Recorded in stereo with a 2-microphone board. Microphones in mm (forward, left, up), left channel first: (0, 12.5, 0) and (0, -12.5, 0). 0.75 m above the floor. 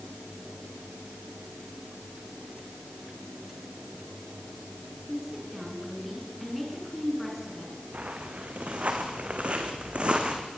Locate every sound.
5.1 s a woman speaking: centre (ahead or behind), 7.5 m
7.9 s footsteps: 75° right (ahead or behind), 3.5 m; by 10.5 s 45° right (ahead or behind), 3 m